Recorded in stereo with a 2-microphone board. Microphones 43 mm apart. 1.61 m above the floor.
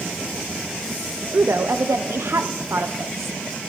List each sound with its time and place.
1.3 s a woman speaking: 75° right (ahead or behind), 0.9 m